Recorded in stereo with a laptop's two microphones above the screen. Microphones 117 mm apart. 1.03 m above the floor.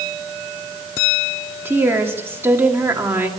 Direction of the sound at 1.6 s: 20° right (ahead or behind).